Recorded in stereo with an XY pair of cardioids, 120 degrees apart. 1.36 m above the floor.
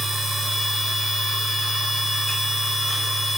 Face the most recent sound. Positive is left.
turn(degrees=-35)